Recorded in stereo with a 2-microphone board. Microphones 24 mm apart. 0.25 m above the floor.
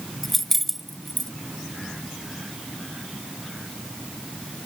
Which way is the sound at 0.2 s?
10° left (ahead or behind).